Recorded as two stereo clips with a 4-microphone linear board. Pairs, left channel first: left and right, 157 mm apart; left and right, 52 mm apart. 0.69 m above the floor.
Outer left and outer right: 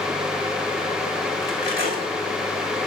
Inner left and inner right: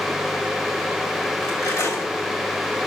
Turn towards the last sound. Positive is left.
turn(degrees=80)